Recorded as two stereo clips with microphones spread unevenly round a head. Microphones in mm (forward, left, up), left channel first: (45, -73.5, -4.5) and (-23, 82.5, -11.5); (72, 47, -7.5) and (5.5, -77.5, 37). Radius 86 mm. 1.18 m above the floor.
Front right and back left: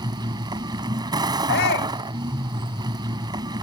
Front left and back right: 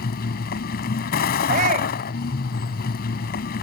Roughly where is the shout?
Right.